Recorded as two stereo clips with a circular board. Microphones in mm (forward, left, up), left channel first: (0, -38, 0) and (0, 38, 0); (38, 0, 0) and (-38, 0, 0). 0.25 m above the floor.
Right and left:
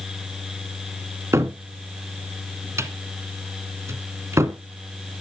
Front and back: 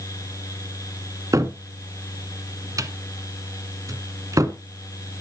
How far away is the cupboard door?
About 1.9 m.